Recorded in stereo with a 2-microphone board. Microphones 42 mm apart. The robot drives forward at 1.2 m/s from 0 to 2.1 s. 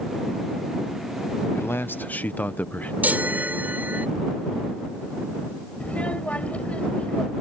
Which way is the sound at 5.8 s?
30° left (ahead or behind).